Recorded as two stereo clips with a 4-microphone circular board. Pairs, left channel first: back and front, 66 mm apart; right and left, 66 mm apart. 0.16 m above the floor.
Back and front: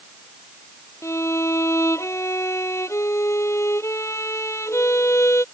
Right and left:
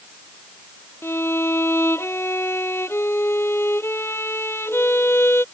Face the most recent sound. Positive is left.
turn(degrees=-140)